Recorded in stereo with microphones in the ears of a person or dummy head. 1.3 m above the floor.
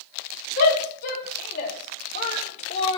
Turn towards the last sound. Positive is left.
turn(degrees=30)  # may be behind; listen again after turning